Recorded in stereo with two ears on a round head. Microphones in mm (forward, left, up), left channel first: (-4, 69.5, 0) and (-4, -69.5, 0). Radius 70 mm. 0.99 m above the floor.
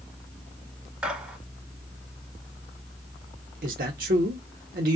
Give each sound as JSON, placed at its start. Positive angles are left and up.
{"t": 1.0, "sound": "a gunshot", "side_deg": -10, "distance_m": 1.2}
{"t": 3.6, "sound": "a man speaking", "side_deg": -65, "distance_m": 0.9}